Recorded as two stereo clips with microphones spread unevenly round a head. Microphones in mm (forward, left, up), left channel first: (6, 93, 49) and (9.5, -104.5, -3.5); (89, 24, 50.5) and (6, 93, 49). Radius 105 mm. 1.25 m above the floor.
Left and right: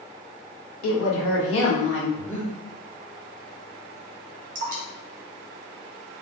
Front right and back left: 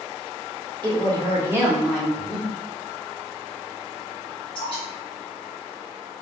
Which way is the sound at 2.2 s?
35° left.